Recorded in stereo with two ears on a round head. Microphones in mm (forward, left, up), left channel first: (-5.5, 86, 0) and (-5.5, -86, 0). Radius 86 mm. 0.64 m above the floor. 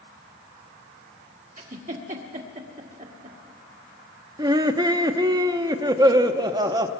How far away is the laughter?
About 0.7 m.